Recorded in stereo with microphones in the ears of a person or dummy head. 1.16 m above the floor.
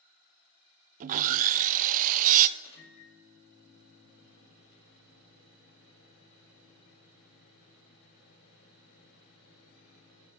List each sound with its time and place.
1.0 s sawing: 45° right (ahead or behind), 0.5 m
2.6 s a microwave: 70° left (ahead or behind), 3 m